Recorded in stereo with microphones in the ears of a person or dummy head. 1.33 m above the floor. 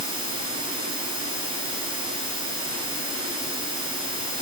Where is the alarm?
I don't hear an alarm.